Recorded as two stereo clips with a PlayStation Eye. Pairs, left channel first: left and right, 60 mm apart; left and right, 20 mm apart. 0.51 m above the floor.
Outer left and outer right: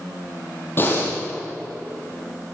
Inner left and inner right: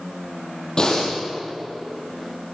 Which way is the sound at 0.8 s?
40° left (ahead or behind).